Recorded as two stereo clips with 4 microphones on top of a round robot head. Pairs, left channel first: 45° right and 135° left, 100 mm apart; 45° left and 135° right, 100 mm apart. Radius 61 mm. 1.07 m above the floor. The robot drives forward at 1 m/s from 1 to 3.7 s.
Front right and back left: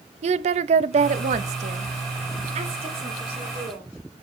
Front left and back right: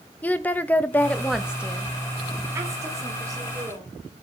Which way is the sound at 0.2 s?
120° left.